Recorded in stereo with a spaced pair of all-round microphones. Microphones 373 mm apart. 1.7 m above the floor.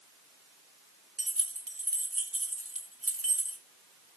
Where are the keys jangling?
35° right (ahead or behind), 2 m.